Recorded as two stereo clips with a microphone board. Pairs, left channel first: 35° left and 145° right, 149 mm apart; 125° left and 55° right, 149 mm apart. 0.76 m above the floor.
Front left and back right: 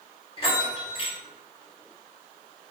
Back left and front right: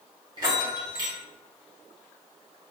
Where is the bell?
5° right, 0.8 m.